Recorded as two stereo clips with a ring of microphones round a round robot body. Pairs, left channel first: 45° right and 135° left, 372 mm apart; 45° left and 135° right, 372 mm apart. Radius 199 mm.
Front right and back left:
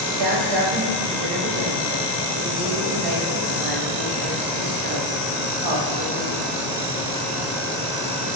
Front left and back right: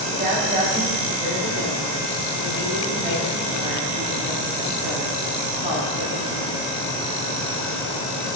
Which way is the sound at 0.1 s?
155° left.